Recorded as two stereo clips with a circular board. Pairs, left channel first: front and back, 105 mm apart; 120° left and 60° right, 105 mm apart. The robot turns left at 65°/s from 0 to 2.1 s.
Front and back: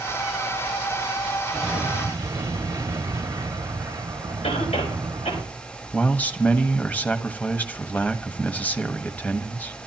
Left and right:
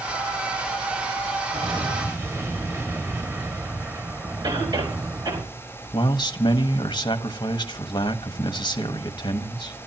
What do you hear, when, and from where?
1.5 s an explosion: 90° right, 2 m; by 5.4 s 125° right, 2 m
4.4 s a cough: 10° right, 5 m
5.9 s a man speaking: 75° left, 1.4 m